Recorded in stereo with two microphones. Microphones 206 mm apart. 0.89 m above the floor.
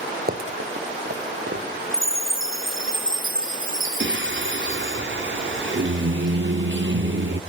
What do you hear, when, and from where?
0.3 s running footsteps: 45° right (ahead or behind), 1.4 m; by 1.6 s 65° right (ahead or behind), 3 m
1.9 s a chime: 75° right (ahead or behind), 0.7 m
4.0 s singing: 65° right (ahead or behind), 0.8 m